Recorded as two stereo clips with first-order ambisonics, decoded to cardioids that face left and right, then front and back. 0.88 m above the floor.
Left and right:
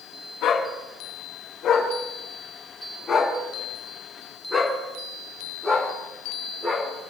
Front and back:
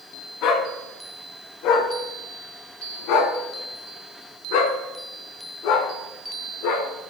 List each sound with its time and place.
0.4 s a dog barking: 40° left, 4 m; by 6.9 s 10° right, 5 m